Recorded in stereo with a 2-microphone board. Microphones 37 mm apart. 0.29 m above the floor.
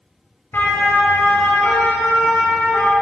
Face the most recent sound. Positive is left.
turn(degrees=80)